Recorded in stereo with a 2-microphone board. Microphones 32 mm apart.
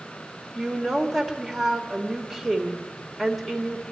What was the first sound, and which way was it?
A woman speaking, 5° right (ahead or behind).